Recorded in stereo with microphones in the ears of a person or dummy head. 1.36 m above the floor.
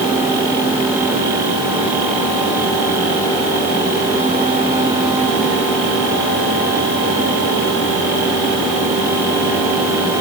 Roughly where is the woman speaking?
No woman speaking in this recording.